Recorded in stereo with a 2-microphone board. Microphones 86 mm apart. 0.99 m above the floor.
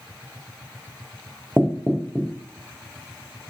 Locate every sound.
1.6 s knocking: 5° right (ahead or behind), 0.5 m